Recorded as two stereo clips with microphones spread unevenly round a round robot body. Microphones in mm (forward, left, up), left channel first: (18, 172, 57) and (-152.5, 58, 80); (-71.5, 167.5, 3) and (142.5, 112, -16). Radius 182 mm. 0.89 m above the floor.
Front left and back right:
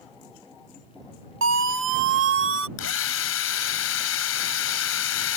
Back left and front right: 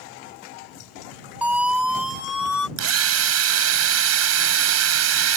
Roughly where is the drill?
Ahead.